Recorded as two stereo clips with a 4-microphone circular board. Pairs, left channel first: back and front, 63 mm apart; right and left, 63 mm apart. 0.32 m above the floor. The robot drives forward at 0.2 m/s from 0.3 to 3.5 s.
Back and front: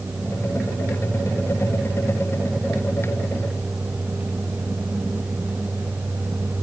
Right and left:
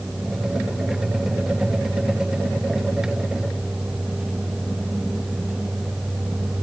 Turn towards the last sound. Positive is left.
No sound to turn to.